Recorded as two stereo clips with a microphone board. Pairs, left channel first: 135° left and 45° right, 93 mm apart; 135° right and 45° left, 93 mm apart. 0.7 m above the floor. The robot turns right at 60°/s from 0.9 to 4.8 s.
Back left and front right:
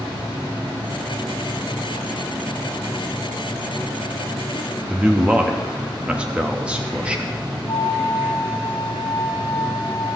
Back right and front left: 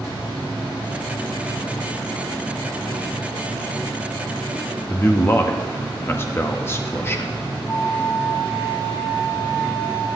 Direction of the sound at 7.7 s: 175° left.